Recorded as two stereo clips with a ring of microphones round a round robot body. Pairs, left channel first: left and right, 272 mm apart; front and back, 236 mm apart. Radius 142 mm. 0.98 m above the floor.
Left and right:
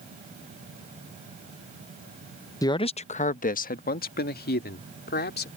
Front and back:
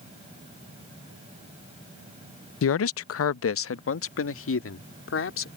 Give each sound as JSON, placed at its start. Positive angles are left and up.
{"t": 2.6, "sound": "a man speaking", "azimuth_deg": 15}